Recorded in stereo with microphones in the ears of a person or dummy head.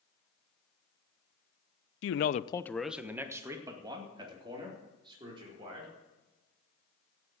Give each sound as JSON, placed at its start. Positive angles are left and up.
{"t": 2.0, "sound": "a man speaking", "side_deg": 85, "distance_m": 0.7}